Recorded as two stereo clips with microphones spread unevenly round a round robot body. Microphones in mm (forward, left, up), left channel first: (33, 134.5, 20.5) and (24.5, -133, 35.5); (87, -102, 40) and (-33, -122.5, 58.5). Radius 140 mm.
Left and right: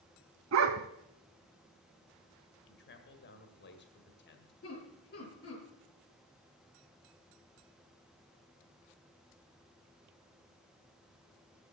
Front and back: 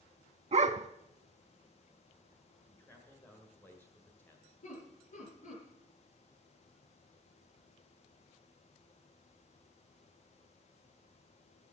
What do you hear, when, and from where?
0.5 s a dog barking: 140° right, 0.8 m
2.7 s a man speaking: 70° left, 1.7 m
4.6 s laughter: 35° left, 4.5 m